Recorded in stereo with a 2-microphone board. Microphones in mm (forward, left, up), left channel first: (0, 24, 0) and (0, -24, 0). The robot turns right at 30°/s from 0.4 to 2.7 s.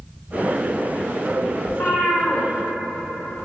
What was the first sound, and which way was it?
A cat meowing, 70° left (ahead or behind).